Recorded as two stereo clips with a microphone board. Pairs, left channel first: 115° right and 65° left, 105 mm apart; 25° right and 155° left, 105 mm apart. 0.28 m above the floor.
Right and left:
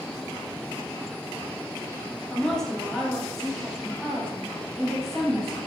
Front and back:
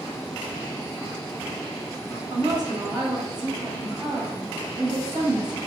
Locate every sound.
2.3 s a woman speaking: 165° left, 1.1 m